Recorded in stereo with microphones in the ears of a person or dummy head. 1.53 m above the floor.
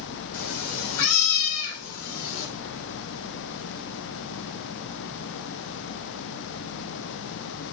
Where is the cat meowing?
70° left (ahead or behind), 3 m.